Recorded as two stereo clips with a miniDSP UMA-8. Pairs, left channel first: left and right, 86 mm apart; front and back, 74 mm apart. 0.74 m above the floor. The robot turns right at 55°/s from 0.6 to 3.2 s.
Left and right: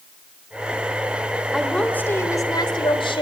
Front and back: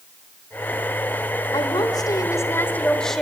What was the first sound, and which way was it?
A woman speaking, 5° right.